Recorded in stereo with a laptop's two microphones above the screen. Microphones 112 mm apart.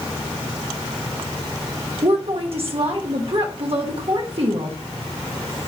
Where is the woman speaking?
60° right (ahead or behind), 1.2 m.